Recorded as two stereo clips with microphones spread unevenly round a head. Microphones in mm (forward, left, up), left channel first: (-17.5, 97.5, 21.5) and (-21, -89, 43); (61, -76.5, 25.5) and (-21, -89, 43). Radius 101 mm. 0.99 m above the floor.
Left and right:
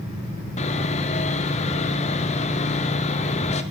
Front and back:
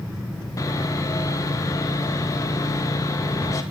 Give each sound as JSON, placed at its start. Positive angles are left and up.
{"t": 0.6, "sound": "sawing", "azimuth_deg": 45, "distance_m": 1.5}